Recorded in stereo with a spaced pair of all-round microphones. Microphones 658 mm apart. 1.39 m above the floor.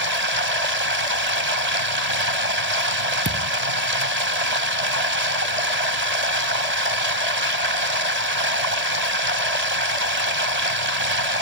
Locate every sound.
0.0 s running water: 75° right (ahead or behind)
3.2 s a thud: 25° right (ahead or behind)